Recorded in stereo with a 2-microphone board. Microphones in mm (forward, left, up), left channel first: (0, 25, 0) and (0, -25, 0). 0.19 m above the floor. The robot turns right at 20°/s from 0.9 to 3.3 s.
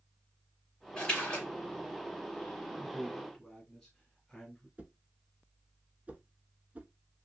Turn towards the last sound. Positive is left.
turn(degrees=-30)  # may be behind; listen again after turning